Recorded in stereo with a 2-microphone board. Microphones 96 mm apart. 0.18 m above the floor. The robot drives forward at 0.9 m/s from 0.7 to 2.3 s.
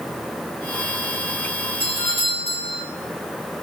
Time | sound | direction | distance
1.8 | a doorbell | 65° right (ahead or behind) | 5 m